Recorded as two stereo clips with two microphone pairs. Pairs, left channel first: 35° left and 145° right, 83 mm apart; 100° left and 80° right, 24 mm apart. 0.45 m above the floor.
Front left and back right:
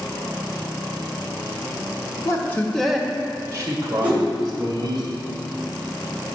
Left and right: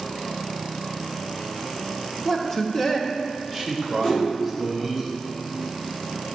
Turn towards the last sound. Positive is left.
turn(degrees=145)